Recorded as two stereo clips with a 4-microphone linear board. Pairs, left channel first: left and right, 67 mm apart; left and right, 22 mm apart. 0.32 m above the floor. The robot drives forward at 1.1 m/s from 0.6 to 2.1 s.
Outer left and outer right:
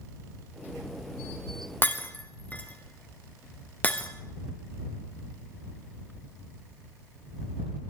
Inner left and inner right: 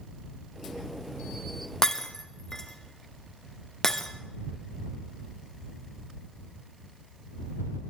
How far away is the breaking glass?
About 1.4 m.